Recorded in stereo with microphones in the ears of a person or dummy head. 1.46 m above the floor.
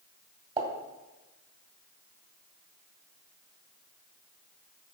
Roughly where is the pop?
Right.